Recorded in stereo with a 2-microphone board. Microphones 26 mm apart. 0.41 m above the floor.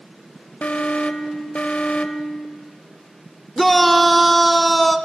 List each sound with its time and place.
0.6 s an alarm: 60° left (ahead or behind), 0.9 m
3.6 s a shout: 5° left (ahead or behind), 0.9 m